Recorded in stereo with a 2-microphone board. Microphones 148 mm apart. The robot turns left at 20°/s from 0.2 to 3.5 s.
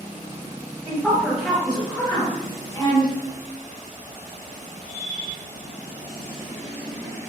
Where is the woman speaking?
10° right (ahead or behind), 1.0 m; by 3.1 s 35° left (ahead or behind), 1.0 m.